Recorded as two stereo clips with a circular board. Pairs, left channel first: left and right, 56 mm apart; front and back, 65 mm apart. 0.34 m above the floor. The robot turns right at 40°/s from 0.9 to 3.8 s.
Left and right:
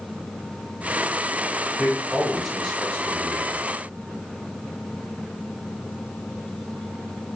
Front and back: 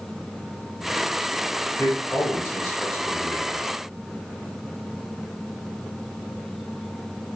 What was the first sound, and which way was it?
A man speaking, 40° right.